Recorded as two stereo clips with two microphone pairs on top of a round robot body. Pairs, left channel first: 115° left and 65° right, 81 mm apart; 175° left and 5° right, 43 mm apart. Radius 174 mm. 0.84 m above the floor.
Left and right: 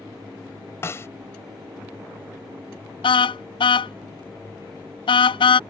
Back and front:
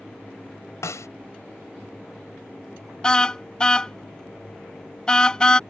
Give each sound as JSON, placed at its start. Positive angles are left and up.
{"t": 0.8, "sound": "a snare drum", "azimuth_deg": 175}
{"t": 3.0, "sound": "a car horn", "azimuth_deg": 100}